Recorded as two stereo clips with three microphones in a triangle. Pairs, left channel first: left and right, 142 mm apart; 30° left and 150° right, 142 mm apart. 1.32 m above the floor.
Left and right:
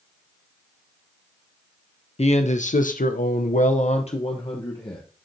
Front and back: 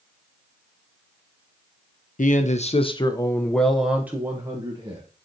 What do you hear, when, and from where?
2.2 s a man speaking: 50° left, 0.8 m; by 5.0 s 150° left, 1.2 m